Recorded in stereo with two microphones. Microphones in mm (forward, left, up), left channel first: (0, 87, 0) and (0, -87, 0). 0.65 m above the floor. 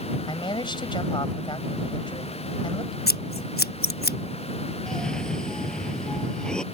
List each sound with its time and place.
0.3 s a man speaking: 25° left (ahead or behind)
3.1 s scissors: 60° left (ahead or behind)
4.9 s a cough: 5° left (ahead or behind)